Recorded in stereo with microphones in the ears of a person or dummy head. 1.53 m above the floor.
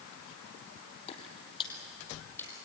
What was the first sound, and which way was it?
Footsteps, 30° left (ahead or behind).